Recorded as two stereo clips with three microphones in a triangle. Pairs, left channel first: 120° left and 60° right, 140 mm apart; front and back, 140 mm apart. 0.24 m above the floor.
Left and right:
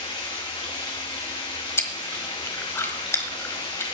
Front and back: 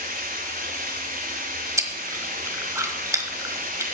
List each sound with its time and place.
0.0 s running water: 175° left, 2.5 m
1.8 s chewing: 160° left, 1.3 m